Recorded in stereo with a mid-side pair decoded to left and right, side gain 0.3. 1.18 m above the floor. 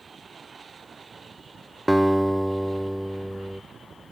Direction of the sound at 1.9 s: 10° right.